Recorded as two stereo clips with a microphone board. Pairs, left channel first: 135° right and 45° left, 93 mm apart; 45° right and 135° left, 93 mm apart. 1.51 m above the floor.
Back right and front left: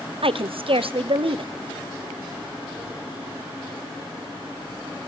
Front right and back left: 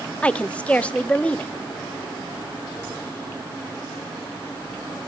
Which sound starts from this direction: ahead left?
A woman speaking, at 0.2 s.